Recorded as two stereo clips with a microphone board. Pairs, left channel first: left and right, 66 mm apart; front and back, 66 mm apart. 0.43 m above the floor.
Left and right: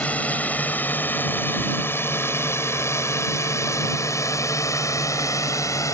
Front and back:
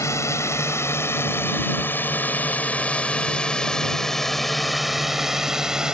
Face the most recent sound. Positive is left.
turn(degrees=105)